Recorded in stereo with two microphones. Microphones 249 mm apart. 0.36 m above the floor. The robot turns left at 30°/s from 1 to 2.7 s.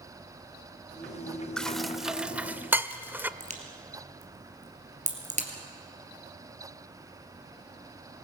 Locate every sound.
1.6 s dishes clattering: 5° left (ahead or behind), 0.5 m; by 3.3 s 10° right (ahead or behind), 0.5 m
3.4 s a crack: 30° right (ahead or behind), 2.5 m